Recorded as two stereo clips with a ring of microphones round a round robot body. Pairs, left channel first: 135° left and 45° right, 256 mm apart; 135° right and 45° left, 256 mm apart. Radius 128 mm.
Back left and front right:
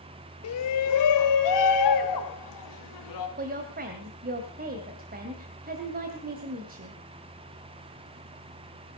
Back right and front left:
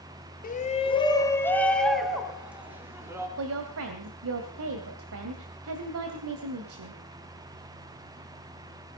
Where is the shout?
165° left, 1.9 m; by 3.3 s 125° left, 4.5 m.